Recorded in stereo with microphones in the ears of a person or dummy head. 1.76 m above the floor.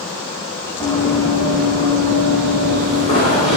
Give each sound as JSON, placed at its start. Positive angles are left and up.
{"t": 0.8, "sound": "running footsteps", "side_deg": 15, "distance_m": 8.5}